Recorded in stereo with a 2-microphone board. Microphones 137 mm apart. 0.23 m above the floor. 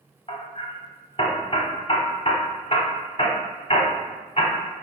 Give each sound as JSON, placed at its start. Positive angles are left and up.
{"t": 0.3, "sound": "hammering", "side_deg": 45, "distance_m": 0.8}